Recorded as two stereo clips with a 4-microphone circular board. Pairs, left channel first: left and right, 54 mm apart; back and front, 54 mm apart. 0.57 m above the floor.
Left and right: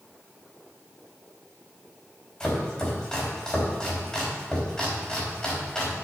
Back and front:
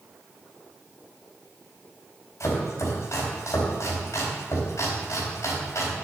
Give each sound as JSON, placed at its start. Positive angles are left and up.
{"t": 2.4, "sound": "chopping", "azimuth_deg": 165, "distance_m": 4.0}